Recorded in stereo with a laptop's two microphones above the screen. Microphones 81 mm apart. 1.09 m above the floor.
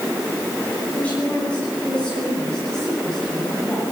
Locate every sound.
0.9 s a woman speaking: 20° left (ahead or behind), 9.5 m; by 3.8 s 5° left (ahead or behind), 9 m